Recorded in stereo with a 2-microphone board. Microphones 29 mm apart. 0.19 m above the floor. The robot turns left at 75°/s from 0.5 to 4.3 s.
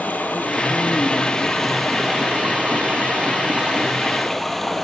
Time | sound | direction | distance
0.0 | running water | 95° left | 0.8 m